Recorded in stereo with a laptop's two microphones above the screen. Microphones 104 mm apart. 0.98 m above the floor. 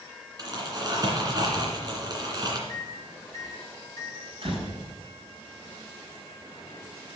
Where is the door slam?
55° right (ahead or behind), 5.5 m.